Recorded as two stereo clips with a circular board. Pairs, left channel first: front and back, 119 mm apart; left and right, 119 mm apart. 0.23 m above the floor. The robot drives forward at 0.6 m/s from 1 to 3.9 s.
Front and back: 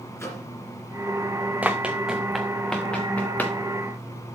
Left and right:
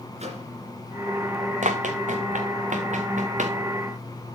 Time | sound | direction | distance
0.2 | a microwave | 65° right | 2.5 m
1.6 | running footsteps | 100° right | 1.1 m